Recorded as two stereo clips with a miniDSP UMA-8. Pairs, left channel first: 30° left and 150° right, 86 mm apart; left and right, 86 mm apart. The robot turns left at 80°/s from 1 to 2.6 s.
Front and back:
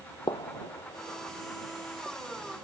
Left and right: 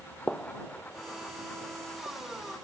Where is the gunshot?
20° left; by 2.2 s 75° right.